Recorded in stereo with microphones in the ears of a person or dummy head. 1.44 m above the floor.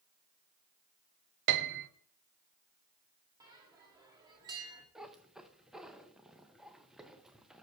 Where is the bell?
20° right (ahead or behind), 1.3 m.